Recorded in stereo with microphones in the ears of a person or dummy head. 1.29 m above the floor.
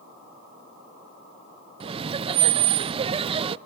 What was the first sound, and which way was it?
Laughter, 30° right (ahead or behind).